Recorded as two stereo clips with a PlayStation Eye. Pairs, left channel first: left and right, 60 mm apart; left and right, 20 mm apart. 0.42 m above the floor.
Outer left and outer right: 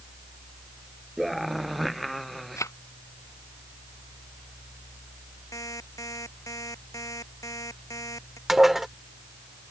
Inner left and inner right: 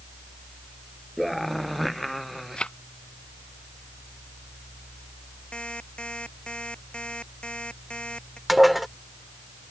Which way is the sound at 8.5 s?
5° right (ahead or behind).